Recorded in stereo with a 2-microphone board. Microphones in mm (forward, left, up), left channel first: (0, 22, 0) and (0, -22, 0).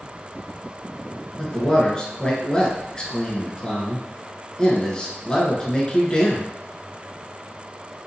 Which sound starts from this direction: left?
A man speaking, at 1.4 s.